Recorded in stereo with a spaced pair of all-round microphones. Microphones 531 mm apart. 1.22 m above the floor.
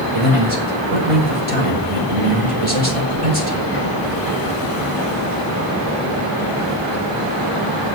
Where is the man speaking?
85° right, 5 m.